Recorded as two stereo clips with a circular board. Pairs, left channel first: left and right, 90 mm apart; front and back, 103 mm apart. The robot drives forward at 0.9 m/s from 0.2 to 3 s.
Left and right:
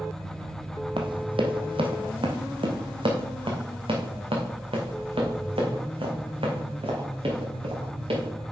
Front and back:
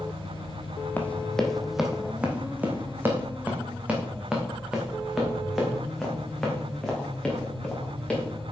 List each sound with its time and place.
1.0 s running footsteps: 70° right, 1.4 m; by 8.3 s 80° right, 4.5 m